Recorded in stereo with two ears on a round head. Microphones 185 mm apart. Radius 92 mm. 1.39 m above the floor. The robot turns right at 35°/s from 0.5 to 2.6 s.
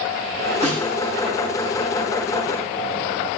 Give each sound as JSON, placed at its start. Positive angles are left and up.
{"t": 0.6, "sound": "a snare drum", "side_deg": -30, "distance_m": 9.5}